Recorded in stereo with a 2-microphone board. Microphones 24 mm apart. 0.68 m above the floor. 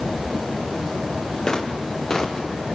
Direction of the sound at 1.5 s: 30° left (ahead or behind).